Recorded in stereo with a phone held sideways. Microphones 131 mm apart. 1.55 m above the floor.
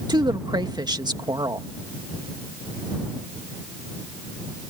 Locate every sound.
0.1 s a woman speaking: 30° right (ahead or behind)